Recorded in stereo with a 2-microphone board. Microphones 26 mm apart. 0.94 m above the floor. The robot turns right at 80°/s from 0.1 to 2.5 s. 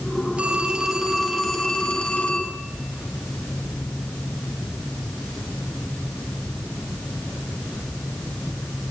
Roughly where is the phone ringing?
Ahead right.